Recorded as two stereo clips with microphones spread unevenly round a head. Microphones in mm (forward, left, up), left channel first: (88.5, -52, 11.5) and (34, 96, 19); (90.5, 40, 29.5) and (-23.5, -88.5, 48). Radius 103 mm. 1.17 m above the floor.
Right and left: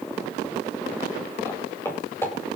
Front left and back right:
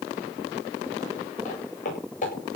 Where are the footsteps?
5° left, 9 m.